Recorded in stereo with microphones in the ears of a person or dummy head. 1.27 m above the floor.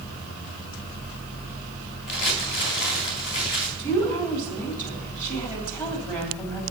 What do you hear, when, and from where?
2.1 s crumpling: 60° left (ahead or behind), 3 m
3.8 s a woman speaking: 20° left (ahead or behind), 3 m